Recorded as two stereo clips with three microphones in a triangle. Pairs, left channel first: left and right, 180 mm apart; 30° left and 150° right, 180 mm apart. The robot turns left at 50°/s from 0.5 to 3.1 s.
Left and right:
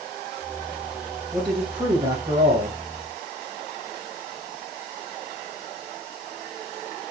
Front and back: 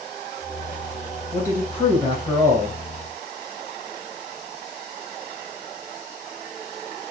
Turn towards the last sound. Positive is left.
turn(degrees=-110)